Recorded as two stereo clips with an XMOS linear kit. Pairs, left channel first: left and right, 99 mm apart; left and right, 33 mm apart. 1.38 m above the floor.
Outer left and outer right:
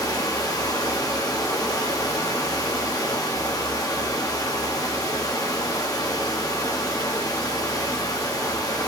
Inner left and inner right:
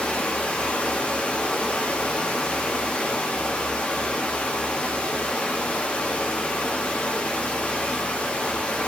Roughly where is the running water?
Left.